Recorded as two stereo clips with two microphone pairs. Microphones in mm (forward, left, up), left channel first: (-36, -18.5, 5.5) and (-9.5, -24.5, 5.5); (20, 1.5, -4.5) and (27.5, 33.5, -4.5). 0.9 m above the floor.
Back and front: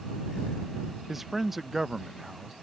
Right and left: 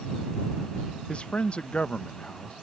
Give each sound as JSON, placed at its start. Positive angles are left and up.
{"t": 1.1, "sound": "a man speaking", "azimuth_deg": -105}